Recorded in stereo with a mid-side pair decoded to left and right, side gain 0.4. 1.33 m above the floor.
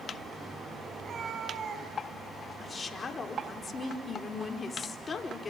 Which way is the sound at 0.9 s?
55° right.